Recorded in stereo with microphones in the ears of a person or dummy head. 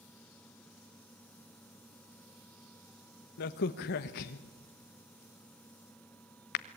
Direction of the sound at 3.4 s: 55° left (ahead or behind).